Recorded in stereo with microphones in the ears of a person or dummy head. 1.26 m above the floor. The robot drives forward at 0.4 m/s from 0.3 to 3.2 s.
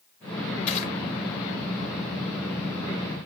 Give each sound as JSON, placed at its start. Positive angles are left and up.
{"t": 0.7, "sound": "crushing", "side_deg": 35, "distance_m": 1.3}